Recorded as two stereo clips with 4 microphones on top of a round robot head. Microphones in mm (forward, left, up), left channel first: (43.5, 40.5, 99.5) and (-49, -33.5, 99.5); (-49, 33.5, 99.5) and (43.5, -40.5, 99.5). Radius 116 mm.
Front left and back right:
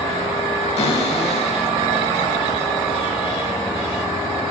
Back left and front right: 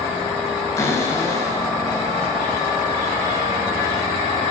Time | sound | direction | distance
0.8 | a cupboard door | 75° left | 4.5 m